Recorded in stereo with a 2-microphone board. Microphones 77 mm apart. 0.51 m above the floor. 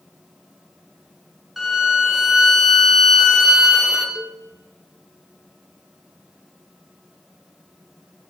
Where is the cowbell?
5° right (ahead or behind), 1.2 m.